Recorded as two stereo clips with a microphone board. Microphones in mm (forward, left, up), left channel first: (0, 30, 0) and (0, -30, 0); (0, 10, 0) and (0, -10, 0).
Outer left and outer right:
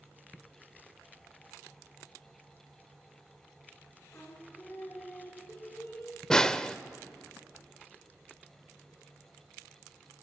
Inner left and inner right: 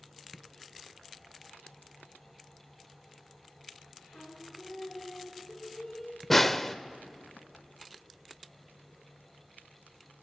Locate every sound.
4.1 s singing: 40° left (ahead or behind), 2.5 m
6.3 s a snare drum: 10° left (ahead or behind), 0.5 m